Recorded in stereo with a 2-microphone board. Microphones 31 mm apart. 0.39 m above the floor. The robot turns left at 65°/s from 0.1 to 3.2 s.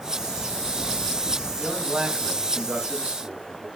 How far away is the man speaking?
About 3 m.